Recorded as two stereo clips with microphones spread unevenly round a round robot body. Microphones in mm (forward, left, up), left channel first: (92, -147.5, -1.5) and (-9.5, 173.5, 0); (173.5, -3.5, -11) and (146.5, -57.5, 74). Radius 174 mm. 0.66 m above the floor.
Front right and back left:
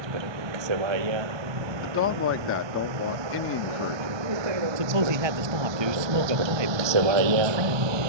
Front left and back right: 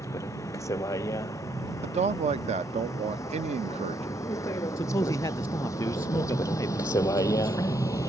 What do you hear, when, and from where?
0.0 s a vehicle: 115° left; by 8.1 s 120° left
1.8 s a man speaking: 115° right
4.8 s a man speaking: 115° left